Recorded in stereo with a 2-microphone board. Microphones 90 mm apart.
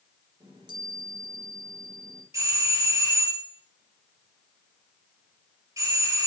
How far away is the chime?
About 4 m.